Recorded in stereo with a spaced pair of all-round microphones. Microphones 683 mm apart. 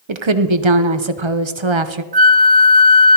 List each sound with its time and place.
0.1 s a woman speaking: 45° right (ahead or behind), 0.8 m
2.1 s a flute: 40° right (ahead or behind), 0.6 m